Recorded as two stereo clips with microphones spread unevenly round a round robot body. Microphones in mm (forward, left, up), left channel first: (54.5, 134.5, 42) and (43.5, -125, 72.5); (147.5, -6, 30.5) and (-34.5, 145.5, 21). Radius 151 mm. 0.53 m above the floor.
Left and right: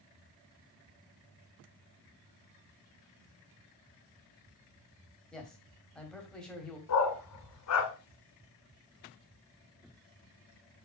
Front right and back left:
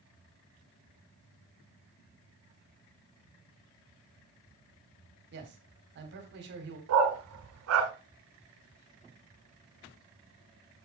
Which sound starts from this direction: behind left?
A dog barking, at 6.9 s.